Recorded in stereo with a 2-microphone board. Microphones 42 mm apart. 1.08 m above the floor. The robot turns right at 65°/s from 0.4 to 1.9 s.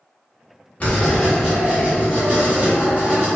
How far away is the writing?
About 1.7 m.